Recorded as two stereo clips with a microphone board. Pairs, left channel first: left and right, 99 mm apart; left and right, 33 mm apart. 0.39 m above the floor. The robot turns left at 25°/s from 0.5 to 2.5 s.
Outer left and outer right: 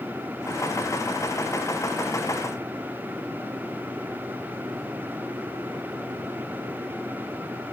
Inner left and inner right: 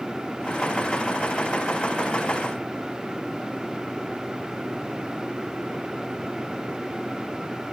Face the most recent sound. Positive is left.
No sound to turn to.